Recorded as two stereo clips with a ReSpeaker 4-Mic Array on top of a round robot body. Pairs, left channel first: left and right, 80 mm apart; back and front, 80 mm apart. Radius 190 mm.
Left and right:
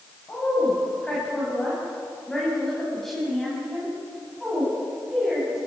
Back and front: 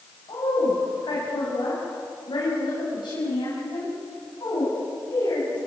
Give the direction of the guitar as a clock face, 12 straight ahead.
I don't hear a guitar.